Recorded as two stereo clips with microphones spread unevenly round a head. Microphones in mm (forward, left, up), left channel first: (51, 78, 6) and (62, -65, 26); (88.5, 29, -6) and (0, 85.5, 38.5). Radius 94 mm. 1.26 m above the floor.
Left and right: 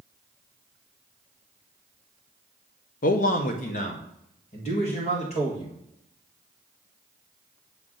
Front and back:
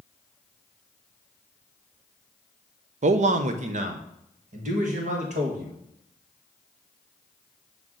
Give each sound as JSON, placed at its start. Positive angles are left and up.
{"t": 3.0, "sound": "a man speaking", "azimuth_deg": 130, "distance_m": 0.5}